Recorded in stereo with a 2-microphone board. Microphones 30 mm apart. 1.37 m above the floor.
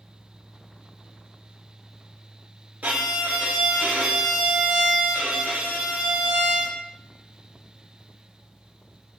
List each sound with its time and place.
2.8 s a violin: 60° right (ahead or behind), 0.5 m